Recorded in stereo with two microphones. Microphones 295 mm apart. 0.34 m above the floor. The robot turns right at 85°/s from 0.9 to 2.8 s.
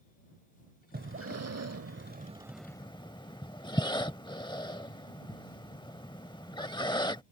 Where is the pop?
I don't hear a pop.